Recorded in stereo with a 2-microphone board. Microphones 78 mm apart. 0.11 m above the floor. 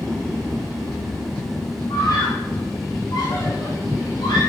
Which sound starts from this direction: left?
A scream, at 1.9 s.